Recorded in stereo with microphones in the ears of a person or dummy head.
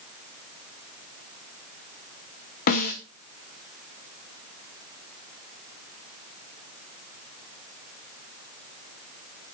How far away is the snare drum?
About 1.7 m.